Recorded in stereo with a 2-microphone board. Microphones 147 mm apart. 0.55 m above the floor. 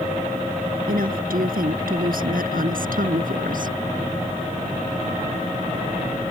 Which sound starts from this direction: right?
A woman speaking, at 0.9 s.